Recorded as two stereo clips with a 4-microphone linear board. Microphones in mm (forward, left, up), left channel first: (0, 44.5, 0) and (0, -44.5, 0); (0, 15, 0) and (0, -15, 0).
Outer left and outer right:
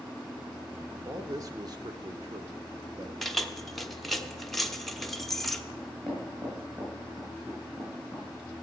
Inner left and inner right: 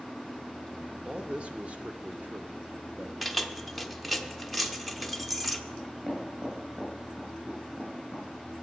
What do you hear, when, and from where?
1.1 s a man speaking: 35° right (ahead or behind), 1.1 m; by 3.1 s 45° right (ahead or behind), 1.3 m
3.2 s keys jangling: centre (ahead or behind), 0.7 m
5.8 s knocking: 30° right (ahead or behind), 7 m